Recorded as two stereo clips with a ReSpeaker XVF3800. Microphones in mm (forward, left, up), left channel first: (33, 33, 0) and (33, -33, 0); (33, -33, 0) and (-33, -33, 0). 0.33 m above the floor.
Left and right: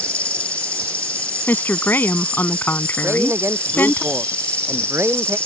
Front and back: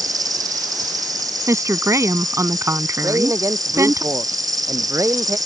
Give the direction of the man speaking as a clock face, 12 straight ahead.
5 o'clock.